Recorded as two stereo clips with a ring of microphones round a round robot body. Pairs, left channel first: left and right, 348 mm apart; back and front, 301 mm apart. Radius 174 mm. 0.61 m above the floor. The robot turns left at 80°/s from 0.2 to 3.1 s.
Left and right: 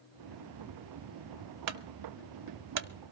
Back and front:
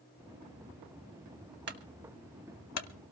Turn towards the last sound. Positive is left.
turn(degrees=-170)